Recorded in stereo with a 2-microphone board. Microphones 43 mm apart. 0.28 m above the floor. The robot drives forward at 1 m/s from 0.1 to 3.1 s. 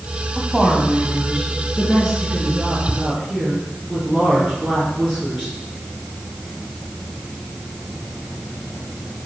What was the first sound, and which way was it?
A woman speaking, 5° right (ahead or behind).